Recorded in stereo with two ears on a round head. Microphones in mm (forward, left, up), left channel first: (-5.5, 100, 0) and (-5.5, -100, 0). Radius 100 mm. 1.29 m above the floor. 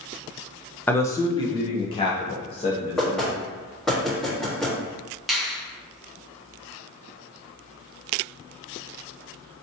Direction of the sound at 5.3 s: Centre (ahead or behind).